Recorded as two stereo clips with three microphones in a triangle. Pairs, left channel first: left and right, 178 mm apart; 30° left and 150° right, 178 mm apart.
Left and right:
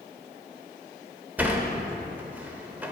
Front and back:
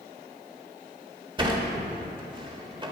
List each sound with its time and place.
1.4 s a sliding door: 160° right, 1.0 m